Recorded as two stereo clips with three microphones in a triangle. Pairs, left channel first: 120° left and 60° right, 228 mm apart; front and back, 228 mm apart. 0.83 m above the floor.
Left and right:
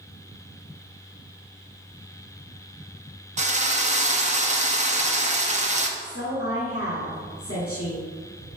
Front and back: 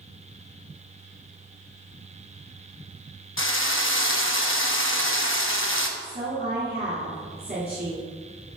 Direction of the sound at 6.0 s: 130° left.